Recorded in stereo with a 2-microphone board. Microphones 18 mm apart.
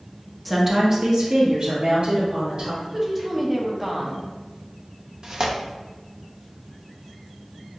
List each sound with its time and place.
0.5 s a woman speaking: centre (ahead or behind), 0.8 m; by 2.7 s 60° right (ahead or behind), 2.5 m
2.8 s a woman speaking: 20° right (ahead or behind), 0.8 m
5.2 s tearing paper: 50° right (ahead or behind), 0.6 m